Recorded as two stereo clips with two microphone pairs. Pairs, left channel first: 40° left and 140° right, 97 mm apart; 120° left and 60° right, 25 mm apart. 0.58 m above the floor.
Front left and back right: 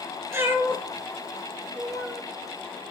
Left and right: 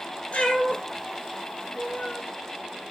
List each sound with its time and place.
0.3 s a cat meowing: 160° left, 2.5 m; by 2.2 s 130° left, 2 m